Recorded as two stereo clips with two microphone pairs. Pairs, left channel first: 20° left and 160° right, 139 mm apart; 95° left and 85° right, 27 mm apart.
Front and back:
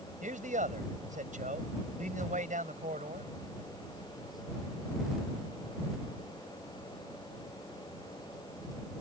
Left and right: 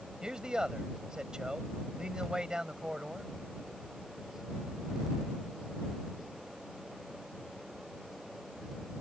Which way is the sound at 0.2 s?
145° right.